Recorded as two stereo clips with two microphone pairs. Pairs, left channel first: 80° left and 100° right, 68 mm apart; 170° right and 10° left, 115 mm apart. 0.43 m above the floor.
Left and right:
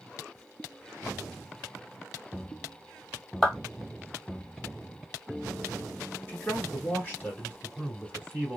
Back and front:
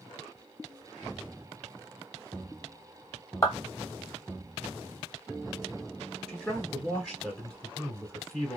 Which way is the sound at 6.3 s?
115° left.